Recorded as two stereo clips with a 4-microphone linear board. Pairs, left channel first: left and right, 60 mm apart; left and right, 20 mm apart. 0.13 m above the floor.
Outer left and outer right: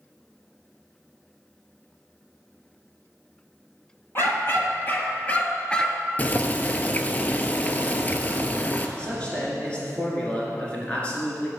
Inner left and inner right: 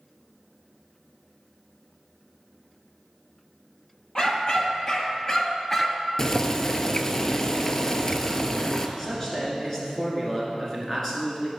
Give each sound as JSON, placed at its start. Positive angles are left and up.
{"t": 4.2, "sound": "a dog barking", "side_deg": 40, "distance_m": 1.4}
{"t": 6.2, "sound": "boiling", "side_deg": 25, "distance_m": 0.5}
{"t": 9.0, "sound": "a man speaking", "side_deg": 20, "distance_m": 1.9}